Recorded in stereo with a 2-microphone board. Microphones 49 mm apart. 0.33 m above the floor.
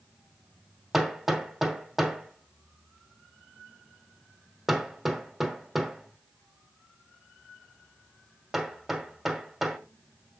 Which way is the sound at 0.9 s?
5° right (ahead or behind).